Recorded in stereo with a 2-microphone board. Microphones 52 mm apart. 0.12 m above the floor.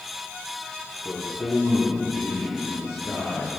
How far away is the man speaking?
About 3 m.